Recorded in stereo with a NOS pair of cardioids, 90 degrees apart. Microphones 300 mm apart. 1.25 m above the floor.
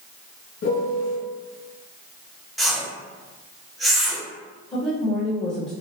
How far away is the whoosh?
About 0.7 m.